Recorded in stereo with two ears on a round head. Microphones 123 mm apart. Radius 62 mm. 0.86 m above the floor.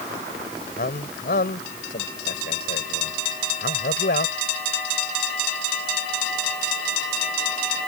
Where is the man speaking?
70° left (ahead or behind).